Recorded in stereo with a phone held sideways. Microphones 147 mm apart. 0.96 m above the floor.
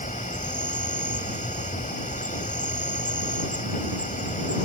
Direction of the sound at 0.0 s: 65° left (ahead or behind).